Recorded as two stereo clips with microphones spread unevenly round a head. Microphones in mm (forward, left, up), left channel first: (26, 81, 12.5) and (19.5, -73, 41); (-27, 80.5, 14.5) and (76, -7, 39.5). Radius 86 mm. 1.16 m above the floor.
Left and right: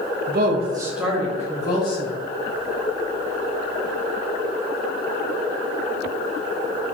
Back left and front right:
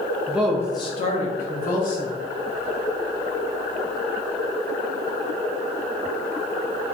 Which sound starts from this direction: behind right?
A woman speaking, at 0.3 s.